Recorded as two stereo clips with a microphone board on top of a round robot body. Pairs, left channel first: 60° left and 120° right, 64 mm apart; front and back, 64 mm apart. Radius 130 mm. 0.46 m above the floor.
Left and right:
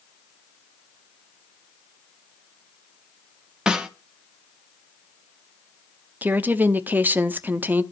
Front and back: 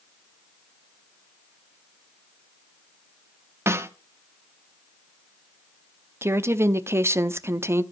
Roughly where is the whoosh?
I don't hear a whoosh.